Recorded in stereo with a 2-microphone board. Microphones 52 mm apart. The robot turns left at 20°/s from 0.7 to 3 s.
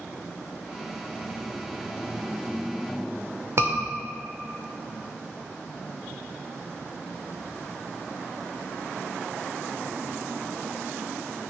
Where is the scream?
60° right (ahead or behind), 1.5 m.